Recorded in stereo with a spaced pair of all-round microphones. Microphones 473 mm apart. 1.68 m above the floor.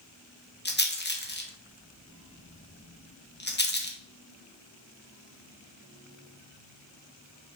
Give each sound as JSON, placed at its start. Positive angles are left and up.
{"t": 0.7, "sound": "a rattle", "side_deg": 20, "distance_m": 1.1}